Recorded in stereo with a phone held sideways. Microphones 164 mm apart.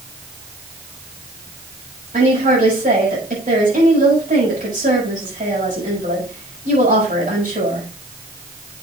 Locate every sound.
2.1 s a woman speaking: 55° right (ahead or behind), 6.5 m